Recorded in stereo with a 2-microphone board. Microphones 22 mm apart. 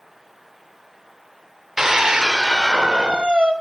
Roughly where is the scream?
Centre.